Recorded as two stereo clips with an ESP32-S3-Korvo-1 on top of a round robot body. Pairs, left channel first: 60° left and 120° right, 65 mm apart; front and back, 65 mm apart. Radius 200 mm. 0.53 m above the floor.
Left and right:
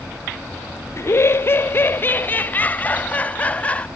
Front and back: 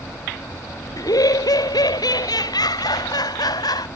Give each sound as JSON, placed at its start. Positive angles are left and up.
{"t": 1.0, "sound": "laughter", "azimuth_deg": 15}